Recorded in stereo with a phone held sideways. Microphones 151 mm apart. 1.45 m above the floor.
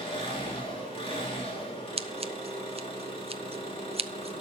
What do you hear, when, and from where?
0.0 s an engine running: 40° left (ahead or behind), 3 m
2.0 s scissors: 40° right (ahead or behind), 0.5 m